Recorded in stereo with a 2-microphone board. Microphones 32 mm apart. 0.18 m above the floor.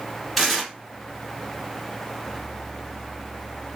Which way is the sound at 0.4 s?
Centre (ahead or behind).